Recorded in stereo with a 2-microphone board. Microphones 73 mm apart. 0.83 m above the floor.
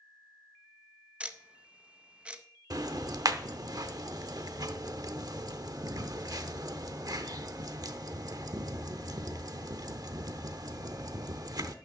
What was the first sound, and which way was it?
Ticking, 15° right (ahead or behind).